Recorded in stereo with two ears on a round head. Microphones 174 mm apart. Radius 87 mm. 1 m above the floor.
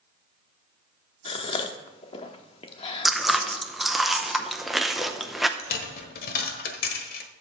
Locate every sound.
1.2 s a gasp: 30° left (ahead or behind), 1.0 m
3.0 s chewing: centre (ahead or behind), 0.7 m
5.6 s a dropped coin: 50° left (ahead or behind), 1.3 m